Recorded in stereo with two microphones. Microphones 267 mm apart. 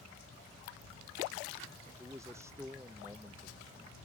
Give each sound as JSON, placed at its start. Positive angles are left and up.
{"t": 2.0, "sound": "a man speaking", "side_deg": -10}